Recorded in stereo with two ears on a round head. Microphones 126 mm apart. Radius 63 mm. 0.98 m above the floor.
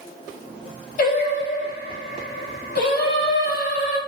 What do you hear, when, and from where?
1.0 s singing: 65° left (ahead or behind), 1.8 m